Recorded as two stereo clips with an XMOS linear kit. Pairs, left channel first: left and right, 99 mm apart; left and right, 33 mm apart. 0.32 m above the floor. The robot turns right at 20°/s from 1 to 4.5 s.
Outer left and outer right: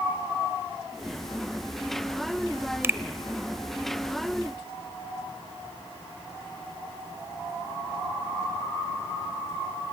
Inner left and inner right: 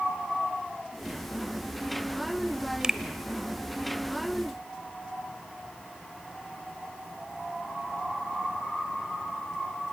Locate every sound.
2.8 s a finger snap: 25° right (ahead or behind), 0.9 m; by 3.0 s 20° right (ahead or behind), 0.9 m